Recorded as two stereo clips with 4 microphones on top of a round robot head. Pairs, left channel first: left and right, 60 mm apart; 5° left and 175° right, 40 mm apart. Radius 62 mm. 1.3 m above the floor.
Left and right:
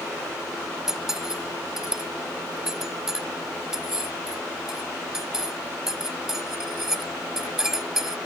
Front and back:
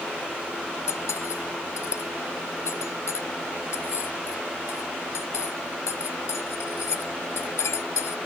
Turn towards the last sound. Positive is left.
turn(degrees=-5)